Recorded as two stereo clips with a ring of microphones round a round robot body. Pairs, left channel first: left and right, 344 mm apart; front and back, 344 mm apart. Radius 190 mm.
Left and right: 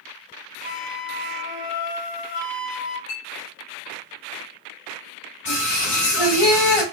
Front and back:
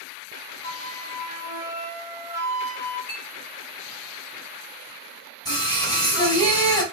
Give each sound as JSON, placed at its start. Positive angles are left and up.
{"t": 0.6, "sound": "a flute", "azimuth_deg": 100, "distance_m": 2.5}
{"t": 3.1, "sound": "a clink", "azimuth_deg": 65, "distance_m": 3.0}
{"t": 5.5, "sound": "singing", "azimuth_deg": 80, "distance_m": 3.5}